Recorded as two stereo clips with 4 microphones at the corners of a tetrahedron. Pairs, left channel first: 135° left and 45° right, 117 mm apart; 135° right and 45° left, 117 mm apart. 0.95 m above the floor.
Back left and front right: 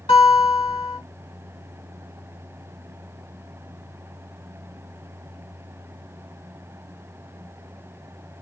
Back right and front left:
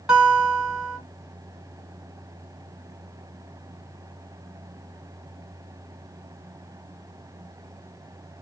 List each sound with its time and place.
0.1 s a guitar: 130° left, 2 m